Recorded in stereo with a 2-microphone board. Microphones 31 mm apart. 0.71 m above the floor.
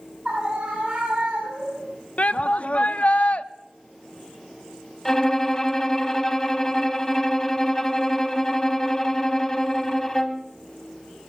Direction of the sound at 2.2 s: 55° left (ahead or behind).